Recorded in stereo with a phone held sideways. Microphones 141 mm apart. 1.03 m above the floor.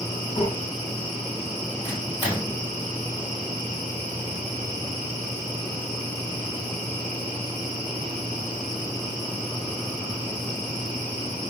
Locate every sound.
0.4 s breathing: 50° left (ahead or behind), 3.5 m
1.8 s a microwave: 30° left (ahead or behind), 4 m